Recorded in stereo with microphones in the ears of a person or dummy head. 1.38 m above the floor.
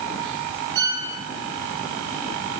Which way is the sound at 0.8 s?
75° right (ahead or behind).